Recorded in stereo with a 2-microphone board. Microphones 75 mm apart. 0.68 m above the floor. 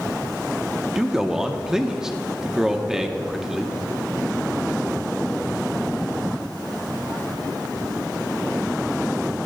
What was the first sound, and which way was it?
A man speaking, 5° right (ahead or behind).